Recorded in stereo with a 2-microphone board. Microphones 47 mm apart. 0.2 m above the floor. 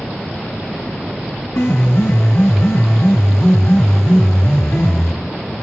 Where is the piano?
60° left (ahead or behind), 4 m.